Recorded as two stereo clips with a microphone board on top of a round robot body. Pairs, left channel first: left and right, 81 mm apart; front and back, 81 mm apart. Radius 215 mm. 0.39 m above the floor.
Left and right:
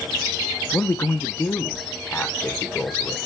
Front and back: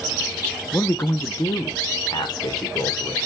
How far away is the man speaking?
About 0.9 m.